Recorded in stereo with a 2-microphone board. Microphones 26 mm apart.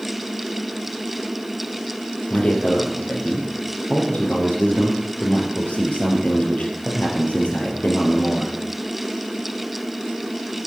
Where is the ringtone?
I don't hear a ringtone.